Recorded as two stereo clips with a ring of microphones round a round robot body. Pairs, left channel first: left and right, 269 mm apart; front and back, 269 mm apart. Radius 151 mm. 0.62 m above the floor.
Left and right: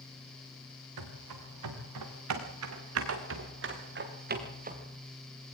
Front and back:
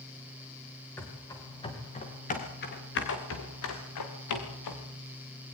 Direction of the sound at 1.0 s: 85° right.